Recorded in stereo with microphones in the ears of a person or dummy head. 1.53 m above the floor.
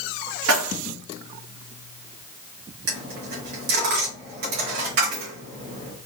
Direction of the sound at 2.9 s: 60° right (ahead or behind).